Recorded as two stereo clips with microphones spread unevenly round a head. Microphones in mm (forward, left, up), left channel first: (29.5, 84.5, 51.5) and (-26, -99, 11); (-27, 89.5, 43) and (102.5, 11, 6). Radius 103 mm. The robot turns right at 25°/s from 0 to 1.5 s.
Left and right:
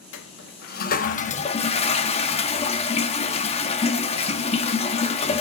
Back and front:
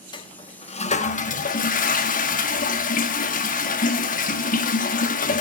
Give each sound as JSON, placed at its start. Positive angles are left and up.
{"t": 0.1, "sound": "a toilet flushing", "azimuth_deg": 95, "distance_m": 2.0}